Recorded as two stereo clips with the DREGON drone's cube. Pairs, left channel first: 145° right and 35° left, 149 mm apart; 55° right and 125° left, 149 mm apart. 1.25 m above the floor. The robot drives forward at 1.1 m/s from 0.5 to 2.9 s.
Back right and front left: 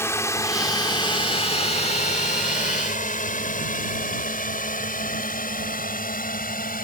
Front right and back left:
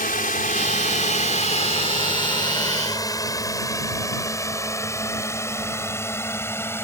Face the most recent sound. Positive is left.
turn(degrees=-130)